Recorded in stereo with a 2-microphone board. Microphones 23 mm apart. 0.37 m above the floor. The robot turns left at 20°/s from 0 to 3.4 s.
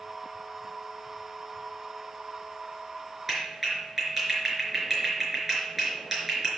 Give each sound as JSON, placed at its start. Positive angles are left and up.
{"t": 3.3, "sound": "a clap", "side_deg": -10, "distance_m": 4.5}